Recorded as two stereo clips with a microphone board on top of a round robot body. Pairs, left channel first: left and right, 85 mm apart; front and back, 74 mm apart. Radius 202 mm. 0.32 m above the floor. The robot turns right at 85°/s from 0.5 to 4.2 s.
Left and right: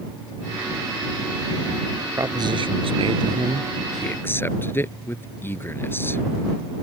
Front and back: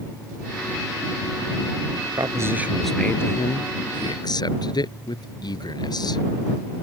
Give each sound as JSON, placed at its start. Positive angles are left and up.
{"t": 2.2, "sound": "a man speaking", "azimuth_deg": -145}